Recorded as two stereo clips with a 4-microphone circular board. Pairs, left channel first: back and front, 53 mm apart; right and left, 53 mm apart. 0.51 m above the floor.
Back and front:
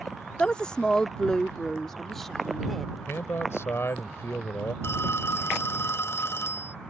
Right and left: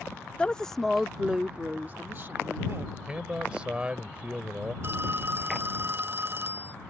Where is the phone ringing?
140° left.